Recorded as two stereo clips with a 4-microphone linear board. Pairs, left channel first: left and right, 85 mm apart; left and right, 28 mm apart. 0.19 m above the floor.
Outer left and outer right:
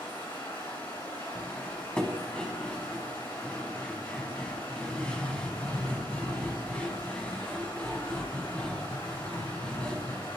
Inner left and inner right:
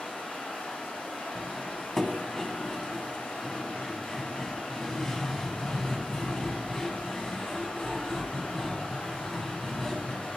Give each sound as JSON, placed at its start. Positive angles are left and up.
{"t": 0.0, "sound": "running water", "side_deg": 75, "distance_m": 3.5}
{"t": 1.4, "sound": "cutlery clinking", "side_deg": 15, "distance_m": 0.9}